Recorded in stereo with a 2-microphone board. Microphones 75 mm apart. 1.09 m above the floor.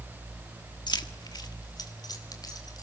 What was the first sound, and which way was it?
Keys jangling, 70° left (ahead or behind).